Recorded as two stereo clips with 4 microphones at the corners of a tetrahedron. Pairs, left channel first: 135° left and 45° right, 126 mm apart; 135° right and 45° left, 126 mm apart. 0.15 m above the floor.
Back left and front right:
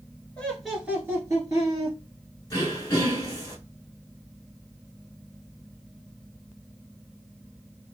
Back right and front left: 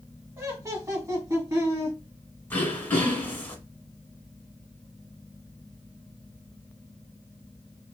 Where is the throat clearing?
165° left, 1.1 m.